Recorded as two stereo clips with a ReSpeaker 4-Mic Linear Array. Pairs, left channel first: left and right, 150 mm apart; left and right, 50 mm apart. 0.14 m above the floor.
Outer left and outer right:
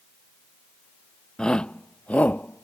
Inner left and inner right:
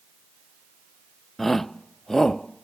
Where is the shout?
5° left (ahead or behind); by 2.6 s 10° left (ahead or behind).